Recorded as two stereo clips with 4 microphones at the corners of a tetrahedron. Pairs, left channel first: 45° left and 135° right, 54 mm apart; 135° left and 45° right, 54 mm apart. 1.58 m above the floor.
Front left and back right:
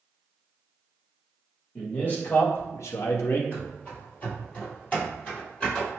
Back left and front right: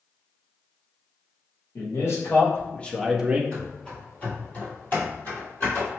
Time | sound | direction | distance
1.8 | a man speaking | 110° left | 1.5 m
3.5 | running footsteps | 80° left | 1.8 m